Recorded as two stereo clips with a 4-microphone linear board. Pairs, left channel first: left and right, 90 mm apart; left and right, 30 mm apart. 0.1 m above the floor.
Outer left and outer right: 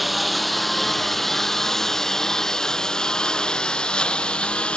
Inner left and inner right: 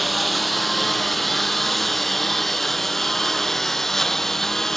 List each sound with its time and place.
0.0 s a lawn mower: centre (ahead or behind); by 4.8 s 10° left (ahead or behind)